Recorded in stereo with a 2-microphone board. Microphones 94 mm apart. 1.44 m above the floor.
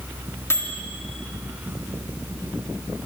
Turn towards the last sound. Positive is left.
turn(degrees=25)  # may be behind; listen again after turning